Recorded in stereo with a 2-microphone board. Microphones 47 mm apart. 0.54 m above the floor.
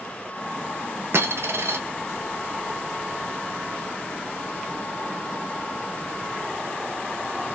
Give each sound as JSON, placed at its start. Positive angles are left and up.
{"t": 1.1, "sound": "a dropped coin", "side_deg": -65, "distance_m": 1.0}